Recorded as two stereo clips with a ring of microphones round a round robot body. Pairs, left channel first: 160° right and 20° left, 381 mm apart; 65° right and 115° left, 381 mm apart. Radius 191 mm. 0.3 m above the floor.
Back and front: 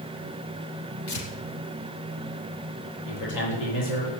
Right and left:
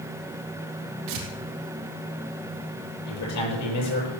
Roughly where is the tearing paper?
Behind left.